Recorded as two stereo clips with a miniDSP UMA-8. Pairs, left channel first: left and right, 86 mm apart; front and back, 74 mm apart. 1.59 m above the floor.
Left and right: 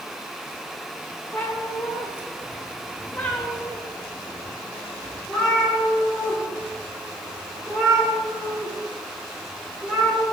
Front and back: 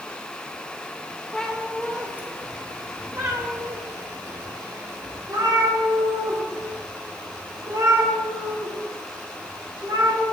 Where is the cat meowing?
70° left, 0.9 m; by 10.2 s straight behind, 4.5 m.